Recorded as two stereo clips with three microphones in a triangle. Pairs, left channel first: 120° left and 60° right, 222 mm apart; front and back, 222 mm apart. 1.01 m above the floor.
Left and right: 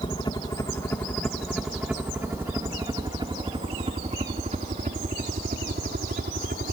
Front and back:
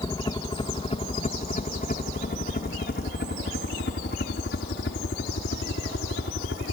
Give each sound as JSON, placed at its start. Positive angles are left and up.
{"t": 0.0, "sound": "a helicopter", "azimuth_deg": 65}